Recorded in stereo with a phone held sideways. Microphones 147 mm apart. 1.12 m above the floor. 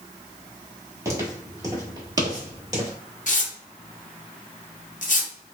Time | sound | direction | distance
1.1 | footsteps | 20° right (ahead or behind) | 1.3 m
3.3 | tearing paper | 60° left (ahead or behind) | 0.6 m